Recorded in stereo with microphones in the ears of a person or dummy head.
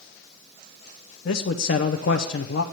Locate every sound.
1.2 s a man speaking: 60° left (ahead or behind), 0.6 m